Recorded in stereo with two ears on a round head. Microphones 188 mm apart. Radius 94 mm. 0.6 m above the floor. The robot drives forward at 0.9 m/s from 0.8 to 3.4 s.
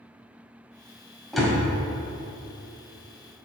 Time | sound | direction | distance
1.3 | a door slam | centre (ahead or behind) | 2 m